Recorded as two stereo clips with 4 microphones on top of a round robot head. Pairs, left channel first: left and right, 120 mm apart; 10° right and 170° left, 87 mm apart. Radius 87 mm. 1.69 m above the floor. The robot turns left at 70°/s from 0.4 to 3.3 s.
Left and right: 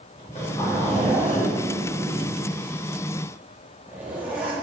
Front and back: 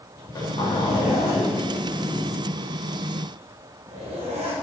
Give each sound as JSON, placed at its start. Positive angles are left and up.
{"t": 0.2, "sound": "a zipper", "azimuth_deg": 35, "distance_m": 3.5}